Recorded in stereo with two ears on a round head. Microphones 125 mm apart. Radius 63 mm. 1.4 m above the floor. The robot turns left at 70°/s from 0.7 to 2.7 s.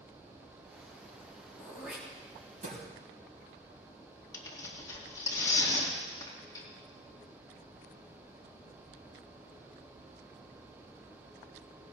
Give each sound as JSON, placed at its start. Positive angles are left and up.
{"t": 1.6, "sound": "throat clearing", "side_deg": 15, "distance_m": 4.5}
{"t": 4.3, "sound": "tearing paper", "side_deg": 25, "distance_m": 2.5}